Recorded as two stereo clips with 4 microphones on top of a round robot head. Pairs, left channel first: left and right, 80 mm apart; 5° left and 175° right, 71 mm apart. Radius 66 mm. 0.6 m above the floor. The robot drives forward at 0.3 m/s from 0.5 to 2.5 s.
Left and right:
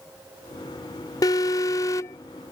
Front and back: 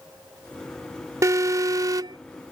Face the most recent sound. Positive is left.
turn(degrees=150)